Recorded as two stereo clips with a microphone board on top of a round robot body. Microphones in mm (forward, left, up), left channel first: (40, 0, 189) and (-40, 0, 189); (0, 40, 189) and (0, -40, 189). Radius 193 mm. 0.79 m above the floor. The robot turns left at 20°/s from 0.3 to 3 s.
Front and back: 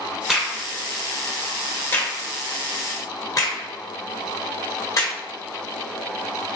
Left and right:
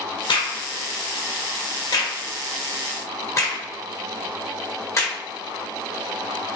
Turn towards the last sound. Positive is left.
turn(degrees=45)